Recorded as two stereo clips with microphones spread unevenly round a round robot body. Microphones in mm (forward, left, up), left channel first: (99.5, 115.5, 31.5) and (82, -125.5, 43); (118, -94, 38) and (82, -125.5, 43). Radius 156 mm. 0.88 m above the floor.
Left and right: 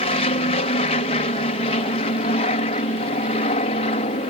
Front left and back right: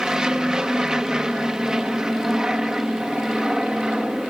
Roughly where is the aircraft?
Behind left.